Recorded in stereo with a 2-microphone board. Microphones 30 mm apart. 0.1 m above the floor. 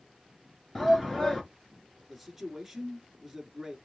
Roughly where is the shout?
Centre.